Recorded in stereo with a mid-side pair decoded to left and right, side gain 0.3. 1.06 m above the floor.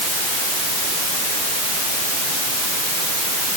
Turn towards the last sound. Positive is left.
No sound to turn to.